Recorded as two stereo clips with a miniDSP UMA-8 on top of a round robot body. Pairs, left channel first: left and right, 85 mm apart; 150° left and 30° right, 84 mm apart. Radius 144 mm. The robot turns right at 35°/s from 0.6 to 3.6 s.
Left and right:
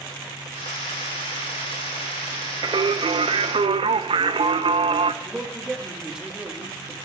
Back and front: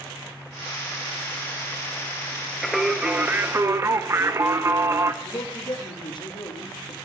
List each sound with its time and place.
2.6 s singing: 120° right, 0.9 m; by 5.1 s 90° right, 0.9 m
5.2 s a man speaking: 170° right, 2.5 m